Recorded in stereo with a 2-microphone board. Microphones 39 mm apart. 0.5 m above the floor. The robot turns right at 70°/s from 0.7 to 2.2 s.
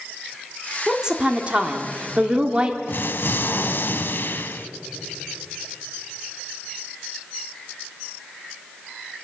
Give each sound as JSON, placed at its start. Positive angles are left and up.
{"t": 0.9, "sound": "a woman speaking", "azimuth_deg": -155, "distance_m": 1.3}
{"t": 2.9, "sound": "an explosion", "side_deg": 60, "distance_m": 0.7}